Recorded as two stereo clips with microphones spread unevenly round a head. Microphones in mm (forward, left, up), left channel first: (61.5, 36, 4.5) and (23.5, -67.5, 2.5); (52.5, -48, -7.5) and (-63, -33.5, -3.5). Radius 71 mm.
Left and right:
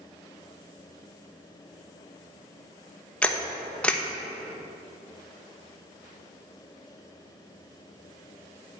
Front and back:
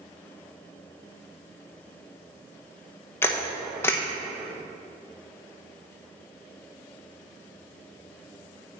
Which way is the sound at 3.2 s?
5° left.